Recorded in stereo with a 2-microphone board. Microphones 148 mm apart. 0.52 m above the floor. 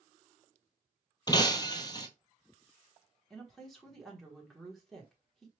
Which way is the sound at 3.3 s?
Centre (ahead or behind).